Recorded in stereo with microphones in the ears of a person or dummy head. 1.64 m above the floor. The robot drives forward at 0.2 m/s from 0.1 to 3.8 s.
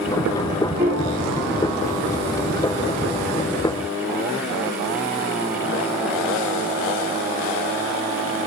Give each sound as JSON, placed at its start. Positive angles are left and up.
{"t": 0.8, "sound": "a piano", "side_deg": -15, "distance_m": 7.5}